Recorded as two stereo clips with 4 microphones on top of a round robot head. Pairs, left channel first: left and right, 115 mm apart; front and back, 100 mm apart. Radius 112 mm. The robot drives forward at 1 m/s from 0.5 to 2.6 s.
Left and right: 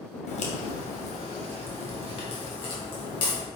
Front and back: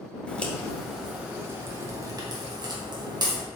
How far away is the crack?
About 1.8 m.